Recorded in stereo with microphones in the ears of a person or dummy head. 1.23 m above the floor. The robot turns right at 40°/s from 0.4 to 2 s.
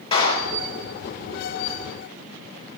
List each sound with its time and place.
0.1 s a clap: 25° left (ahead or behind), 3.5 m; by 0.5 s 20° left (ahead or behind), 3.5 m